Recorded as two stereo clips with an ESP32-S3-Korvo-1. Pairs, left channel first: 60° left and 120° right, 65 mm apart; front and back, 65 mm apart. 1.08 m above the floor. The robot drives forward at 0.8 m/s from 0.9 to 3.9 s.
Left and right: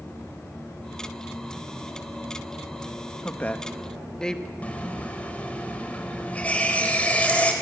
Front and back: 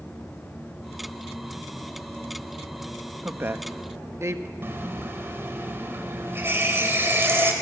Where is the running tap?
125° left, 3 m.